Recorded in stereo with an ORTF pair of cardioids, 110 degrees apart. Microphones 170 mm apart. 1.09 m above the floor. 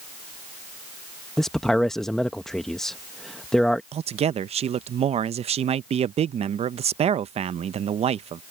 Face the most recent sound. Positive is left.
turn(degrees=-40)